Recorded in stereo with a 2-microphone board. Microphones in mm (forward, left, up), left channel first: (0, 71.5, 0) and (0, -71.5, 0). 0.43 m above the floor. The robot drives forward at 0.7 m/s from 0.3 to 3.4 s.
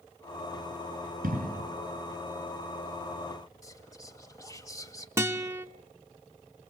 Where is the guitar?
20° right (ahead or behind), 0.7 m.